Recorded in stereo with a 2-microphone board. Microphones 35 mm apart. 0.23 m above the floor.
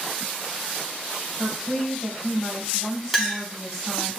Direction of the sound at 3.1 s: 5° right (ahead or behind).